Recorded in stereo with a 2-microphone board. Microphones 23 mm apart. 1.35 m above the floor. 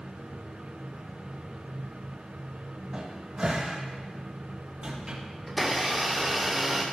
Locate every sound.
2.9 s a cupboard door: 40° right (ahead or behind), 2.5 m
5.5 s a blender: 5° right (ahead or behind), 1.6 m